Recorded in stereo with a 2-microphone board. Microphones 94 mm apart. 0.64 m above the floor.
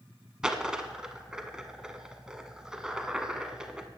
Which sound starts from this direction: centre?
A dropped coin, at 0.4 s.